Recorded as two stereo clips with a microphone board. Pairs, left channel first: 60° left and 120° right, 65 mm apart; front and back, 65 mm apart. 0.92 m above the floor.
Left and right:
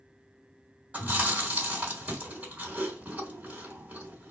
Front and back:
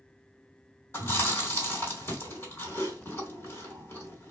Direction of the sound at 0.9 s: 50° right.